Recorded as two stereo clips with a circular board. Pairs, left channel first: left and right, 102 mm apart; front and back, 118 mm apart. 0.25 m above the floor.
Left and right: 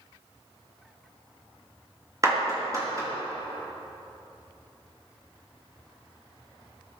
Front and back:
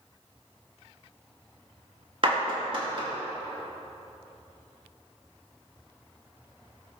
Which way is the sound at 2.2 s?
145° right.